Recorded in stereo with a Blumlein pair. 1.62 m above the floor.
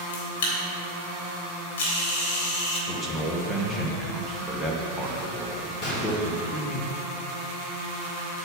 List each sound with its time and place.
0.1 s a camera shutter: 55° left, 3.5 m
2.9 s a man speaking: 5° left, 1.9 m
5.8 s a gunshot: 25° left, 3.5 m